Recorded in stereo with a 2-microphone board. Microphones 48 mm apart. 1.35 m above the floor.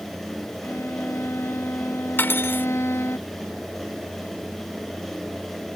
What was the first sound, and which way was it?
A violin, 65° left (ahead or behind).